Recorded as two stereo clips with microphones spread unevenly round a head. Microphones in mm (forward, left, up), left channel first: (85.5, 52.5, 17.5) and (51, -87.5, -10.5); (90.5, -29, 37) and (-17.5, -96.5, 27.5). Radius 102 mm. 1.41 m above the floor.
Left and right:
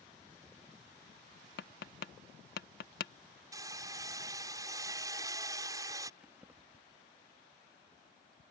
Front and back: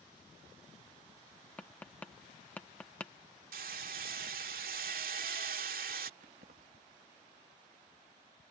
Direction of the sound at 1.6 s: 115° left.